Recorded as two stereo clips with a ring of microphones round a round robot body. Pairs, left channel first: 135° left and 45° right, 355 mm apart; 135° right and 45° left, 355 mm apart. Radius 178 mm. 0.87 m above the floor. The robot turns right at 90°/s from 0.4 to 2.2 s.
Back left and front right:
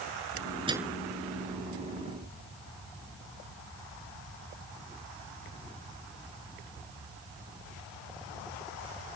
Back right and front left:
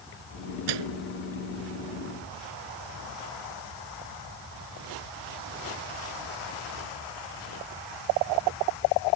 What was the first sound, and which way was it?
A microwave, 30° left.